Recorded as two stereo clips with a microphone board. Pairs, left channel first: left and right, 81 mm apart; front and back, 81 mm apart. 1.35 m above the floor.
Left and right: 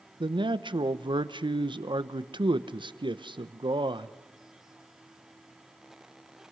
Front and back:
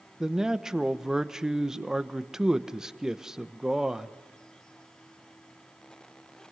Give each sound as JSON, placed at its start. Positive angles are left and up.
{"t": 0.2, "sound": "a man speaking", "azimuth_deg": -100, "distance_m": 1.0}